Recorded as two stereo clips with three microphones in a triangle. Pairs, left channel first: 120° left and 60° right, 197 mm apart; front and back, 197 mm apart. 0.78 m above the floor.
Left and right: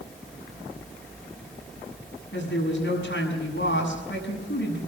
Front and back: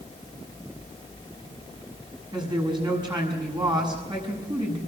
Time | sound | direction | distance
2.3 | a woman speaking | 115° left | 6.5 m